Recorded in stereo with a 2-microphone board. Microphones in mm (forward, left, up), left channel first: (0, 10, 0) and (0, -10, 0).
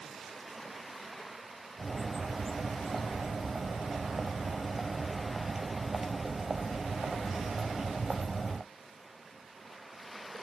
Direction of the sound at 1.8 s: 25° right (ahead or behind).